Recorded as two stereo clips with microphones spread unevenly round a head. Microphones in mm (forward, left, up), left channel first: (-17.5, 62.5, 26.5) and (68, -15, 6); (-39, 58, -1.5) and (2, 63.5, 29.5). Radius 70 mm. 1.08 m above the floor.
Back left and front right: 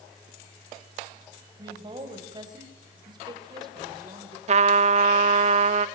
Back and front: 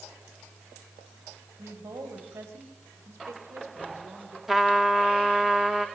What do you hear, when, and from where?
1.6 s a woman speaking: 15° left, 5.5 m
4.5 s a trumpet: 20° right, 0.7 m